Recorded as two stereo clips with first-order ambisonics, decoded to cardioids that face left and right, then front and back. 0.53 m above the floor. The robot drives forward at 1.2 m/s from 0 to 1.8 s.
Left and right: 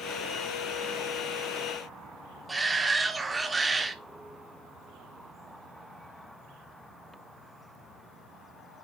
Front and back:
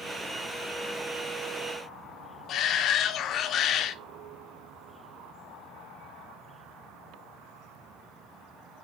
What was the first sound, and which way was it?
A shout, 15° right.